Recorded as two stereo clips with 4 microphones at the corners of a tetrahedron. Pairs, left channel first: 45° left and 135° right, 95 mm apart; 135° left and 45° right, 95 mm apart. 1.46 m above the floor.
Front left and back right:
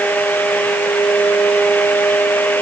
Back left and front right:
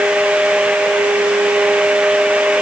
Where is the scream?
I don't hear a scream.